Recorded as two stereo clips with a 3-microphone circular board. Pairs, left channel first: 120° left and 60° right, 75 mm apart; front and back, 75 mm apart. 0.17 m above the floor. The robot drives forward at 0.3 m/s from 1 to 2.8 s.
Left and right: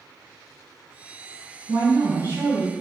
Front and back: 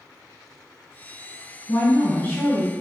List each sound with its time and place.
1.7 s a woman speaking: 25° right, 1.9 m; by 2.7 s 30° right, 1.7 m